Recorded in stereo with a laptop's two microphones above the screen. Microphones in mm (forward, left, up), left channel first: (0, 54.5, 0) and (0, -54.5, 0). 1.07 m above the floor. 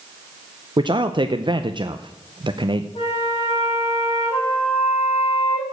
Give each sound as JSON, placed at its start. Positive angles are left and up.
{"t": 0.8, "sound": "a man speaking", "side_deg": -45, "distance_m": 0.5}
{"t": 3.0, "sound": "a flute", "side_deg": 55, "distance_m": 5.0}